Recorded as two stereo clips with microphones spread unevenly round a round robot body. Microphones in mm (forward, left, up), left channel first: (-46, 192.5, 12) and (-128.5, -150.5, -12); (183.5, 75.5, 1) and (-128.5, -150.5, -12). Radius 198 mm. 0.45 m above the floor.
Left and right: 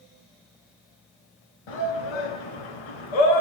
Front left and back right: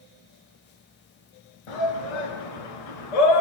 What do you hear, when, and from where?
1.7 s a shout: 55° left, 6 m